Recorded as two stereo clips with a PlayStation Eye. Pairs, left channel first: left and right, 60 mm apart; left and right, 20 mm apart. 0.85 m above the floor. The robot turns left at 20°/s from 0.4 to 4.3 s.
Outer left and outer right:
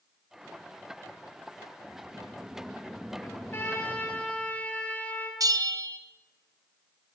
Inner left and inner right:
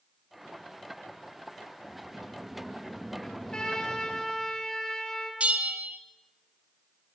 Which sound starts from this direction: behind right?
A sliding door, at 1.9 s.